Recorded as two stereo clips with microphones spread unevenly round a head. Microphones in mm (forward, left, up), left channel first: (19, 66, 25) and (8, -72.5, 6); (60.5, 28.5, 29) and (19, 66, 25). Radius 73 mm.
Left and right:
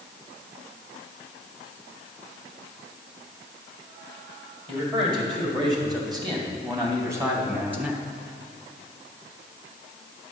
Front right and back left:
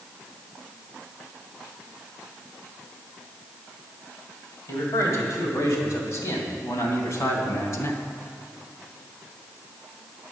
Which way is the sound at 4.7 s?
45° right.